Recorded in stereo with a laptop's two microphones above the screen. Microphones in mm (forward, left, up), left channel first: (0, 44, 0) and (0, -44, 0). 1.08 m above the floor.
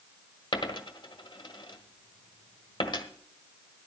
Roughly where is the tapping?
No tapping in this recording.